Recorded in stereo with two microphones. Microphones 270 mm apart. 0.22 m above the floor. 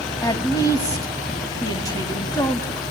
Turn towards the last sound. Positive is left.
turn(degrees=15)  # may be behind; listen again after turning